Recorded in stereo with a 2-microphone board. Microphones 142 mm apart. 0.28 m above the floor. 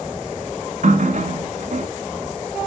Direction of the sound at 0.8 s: 65° right (ahead or behind).